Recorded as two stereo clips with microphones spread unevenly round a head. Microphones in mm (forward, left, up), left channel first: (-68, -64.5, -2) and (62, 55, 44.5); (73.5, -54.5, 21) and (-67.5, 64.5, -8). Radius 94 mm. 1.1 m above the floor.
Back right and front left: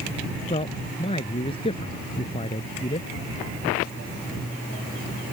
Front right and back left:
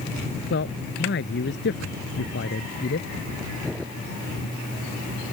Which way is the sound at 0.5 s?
75° right.